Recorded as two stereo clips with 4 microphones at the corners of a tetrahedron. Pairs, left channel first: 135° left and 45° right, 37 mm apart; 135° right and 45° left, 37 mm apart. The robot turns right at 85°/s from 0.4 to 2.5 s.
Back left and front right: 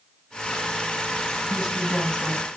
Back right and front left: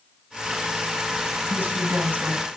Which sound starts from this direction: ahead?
A woman speaking, at 1.5 s.